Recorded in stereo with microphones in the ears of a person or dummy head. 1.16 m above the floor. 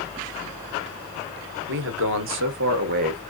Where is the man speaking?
60° right (ahead or behind), 0.8 m; by 3.2 s 45° right (ahead or behind), 1.1 m.